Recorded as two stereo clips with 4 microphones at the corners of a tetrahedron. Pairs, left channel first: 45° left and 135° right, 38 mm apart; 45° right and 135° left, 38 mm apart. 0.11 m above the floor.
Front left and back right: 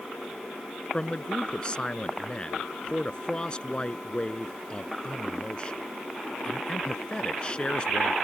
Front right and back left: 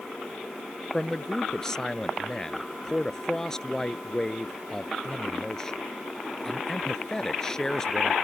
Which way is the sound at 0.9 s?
15° left.